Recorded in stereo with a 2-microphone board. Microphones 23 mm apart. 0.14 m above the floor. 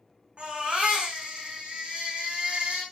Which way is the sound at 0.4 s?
55° right (ahead or behind).